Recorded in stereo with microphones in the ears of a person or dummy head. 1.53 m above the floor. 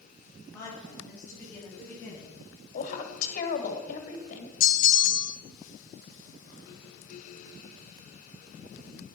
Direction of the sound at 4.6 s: 50° left (ahead or behind).